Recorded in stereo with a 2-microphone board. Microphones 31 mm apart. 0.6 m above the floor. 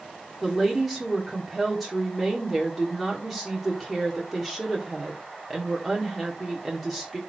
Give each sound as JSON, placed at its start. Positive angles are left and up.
{"t": 0.4, "sound": "a woman speaking", "side_deg": 0, "distance_m": 1.6}